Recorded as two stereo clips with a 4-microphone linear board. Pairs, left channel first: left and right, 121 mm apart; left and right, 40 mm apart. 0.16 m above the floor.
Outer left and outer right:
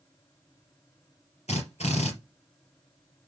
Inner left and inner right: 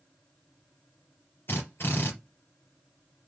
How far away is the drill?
About 3.5 m.